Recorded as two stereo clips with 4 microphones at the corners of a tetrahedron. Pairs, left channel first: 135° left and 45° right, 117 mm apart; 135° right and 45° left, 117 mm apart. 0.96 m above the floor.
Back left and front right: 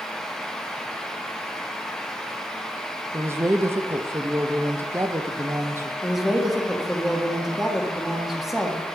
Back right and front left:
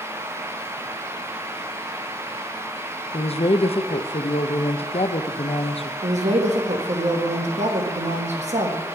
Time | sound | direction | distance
3.1 | a woman speaking | 110° right | 0.6 m
6.0 | a woman speaking | 45° left | 1.3 m